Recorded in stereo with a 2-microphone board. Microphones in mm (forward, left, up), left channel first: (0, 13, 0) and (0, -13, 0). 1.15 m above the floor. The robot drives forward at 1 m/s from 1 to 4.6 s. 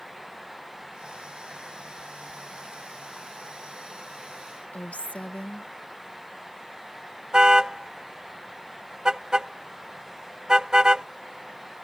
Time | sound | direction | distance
4.7 | a woman speaking | 60° left (ahead or behind) | ?
7.3 | a car horn | 30° right (ahead or behind) | ?